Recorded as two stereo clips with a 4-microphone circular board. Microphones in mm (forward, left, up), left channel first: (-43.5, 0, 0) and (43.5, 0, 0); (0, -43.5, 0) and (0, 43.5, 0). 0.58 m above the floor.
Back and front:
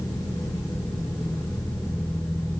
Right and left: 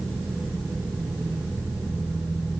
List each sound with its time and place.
Only background noise.